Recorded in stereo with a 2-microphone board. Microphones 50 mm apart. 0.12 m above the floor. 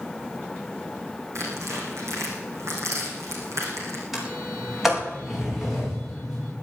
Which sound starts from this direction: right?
Tearing paper, at 1.4 s.